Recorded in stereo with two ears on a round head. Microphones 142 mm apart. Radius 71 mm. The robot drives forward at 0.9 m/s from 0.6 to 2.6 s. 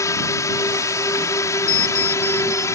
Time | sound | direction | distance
0.0 | a drone | 20° left (ahead or behind) | ?
1.7 | an alarm clock | 65° left (ahead or behind) | ?